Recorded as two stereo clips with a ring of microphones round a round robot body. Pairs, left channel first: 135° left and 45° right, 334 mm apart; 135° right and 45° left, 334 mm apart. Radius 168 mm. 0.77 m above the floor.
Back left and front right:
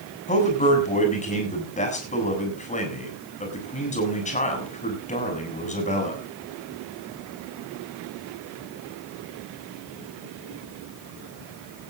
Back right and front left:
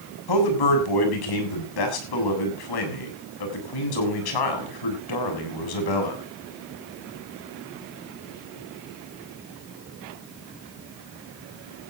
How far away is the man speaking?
About 7.5 m.